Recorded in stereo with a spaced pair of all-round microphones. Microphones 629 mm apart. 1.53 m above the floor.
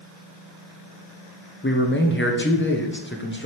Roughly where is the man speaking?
Centre.